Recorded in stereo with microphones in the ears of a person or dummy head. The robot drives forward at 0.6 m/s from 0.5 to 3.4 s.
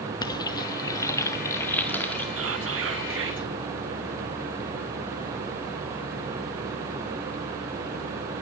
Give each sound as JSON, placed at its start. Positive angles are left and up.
{"t": 0.2, "sound": "frying", "side_deg": 20, "distance_m": 0.8}
{"t": 2.4, "sound": "whispering", "side_deg": -70, "distance_m": 1.7}